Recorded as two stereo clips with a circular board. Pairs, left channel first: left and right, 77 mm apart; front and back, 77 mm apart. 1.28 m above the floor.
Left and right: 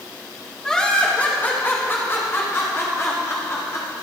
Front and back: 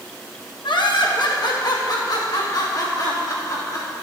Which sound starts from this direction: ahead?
Laughter, at 0.6 s.